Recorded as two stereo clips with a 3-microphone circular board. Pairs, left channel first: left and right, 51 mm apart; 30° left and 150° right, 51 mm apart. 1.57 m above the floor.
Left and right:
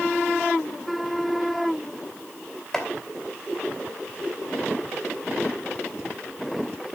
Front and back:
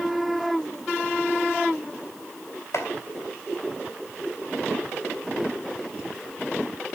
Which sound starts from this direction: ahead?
Chopping, at 2.7 s.